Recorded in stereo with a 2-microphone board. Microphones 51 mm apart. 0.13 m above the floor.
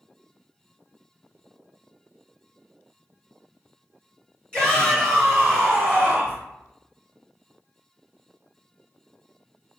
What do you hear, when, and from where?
4.5 s a shout: 15° left (ahead or behind), 1.6 m; by 6.4 s 30° right (ahead or behind), 1.8 m